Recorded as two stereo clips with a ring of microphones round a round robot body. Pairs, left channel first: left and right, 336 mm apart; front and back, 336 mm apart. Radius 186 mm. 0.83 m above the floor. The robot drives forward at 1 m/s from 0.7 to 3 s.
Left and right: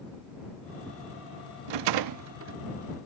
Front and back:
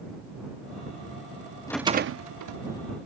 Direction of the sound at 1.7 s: 80° right.